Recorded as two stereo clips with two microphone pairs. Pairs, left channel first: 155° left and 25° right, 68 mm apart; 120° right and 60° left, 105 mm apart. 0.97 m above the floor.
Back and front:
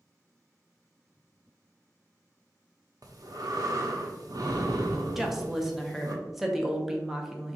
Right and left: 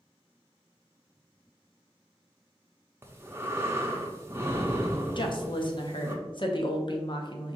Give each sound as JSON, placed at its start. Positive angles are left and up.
{"t": 3.0, "sound": "breathing", "azimuth_deg": -10, "distance_m": 0.7}
{"t": 5.2, "sound": "a woman speaking", "azimuth_deg": -110, "distance_m": 0.8}